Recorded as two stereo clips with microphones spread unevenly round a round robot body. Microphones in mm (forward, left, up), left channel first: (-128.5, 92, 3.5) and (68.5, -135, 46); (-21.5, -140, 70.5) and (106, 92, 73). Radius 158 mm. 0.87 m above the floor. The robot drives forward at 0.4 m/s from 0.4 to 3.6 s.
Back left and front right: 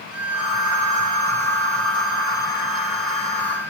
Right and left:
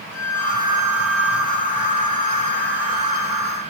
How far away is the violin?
About 1.1 m.